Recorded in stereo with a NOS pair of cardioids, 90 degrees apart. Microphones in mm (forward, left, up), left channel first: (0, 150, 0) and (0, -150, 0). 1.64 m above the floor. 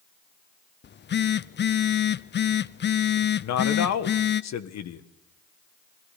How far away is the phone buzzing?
About 0.7 m.